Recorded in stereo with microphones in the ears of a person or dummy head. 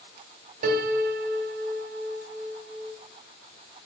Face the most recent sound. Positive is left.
turn(degrees=-45)  # may be behind; listen again after turning